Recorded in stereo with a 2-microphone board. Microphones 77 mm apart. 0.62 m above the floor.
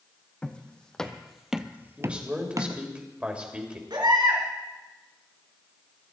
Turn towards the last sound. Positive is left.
turn(degrees=-75)  # may be behind; listen again after turning